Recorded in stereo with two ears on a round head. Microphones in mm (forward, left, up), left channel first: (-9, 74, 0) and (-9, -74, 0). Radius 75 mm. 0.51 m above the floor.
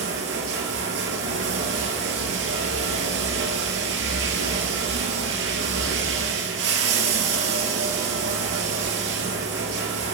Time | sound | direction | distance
0.0 | running water | 85° right | 2 m